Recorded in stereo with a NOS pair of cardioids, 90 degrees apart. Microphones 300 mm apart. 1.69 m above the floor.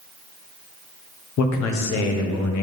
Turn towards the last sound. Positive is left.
turn(degrees=70)